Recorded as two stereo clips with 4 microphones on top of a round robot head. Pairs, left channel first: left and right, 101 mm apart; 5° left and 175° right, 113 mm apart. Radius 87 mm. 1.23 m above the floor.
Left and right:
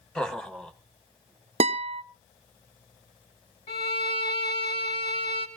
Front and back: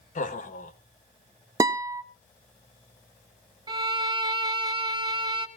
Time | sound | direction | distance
0.1 | laughter | 5° left | 1.6 m
1.6 | a guitar | 110° right | 0.5 m
3.7 | a violin | 125° left | 2.5 m